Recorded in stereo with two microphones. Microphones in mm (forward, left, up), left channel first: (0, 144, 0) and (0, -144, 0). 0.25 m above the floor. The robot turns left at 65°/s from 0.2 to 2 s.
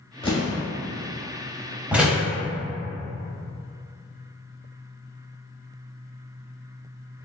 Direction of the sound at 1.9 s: 5° right (ahead or behind).